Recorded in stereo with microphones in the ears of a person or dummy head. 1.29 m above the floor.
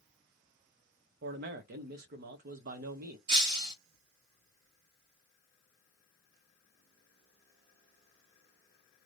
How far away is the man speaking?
About 0.6 m.